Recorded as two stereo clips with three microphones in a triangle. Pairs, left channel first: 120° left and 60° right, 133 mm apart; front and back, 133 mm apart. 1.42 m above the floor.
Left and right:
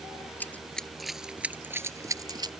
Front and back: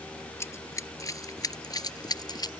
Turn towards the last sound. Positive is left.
turn(degrees=-30)